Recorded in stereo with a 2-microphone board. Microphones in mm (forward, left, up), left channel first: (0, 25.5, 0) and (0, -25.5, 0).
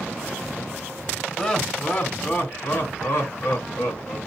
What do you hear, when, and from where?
1.4 s laughter: 20° left (ahead or behind), 1.4 m; by 4.2 s 60° left (ahead or behind), 2 m